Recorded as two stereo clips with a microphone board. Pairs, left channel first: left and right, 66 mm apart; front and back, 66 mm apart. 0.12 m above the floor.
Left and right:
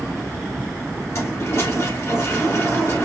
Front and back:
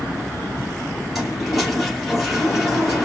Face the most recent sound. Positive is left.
turn(degrees=95)